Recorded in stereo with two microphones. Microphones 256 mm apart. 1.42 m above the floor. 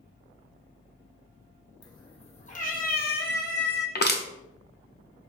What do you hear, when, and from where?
1.8 s a cat meowing: 15° left (ahead or behind), 0.9 m; by 3.9 s 40° left (ahead or behind), 1.1 m
4.0 s crushing: 40° left (ahead or behind), 0.6 m